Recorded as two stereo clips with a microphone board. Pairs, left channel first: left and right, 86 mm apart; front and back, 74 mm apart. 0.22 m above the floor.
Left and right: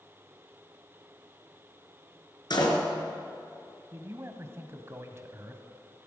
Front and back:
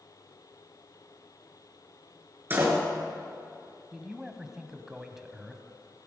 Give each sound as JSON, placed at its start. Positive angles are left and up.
{"t": 2.5, "sound": "a door slam", "azimuth_deg": 120, "distance_m": 3.0}
{"t": 3.9, "sound": "a man speaking", "azimuth_deg": -100, "distance_m": 1.2}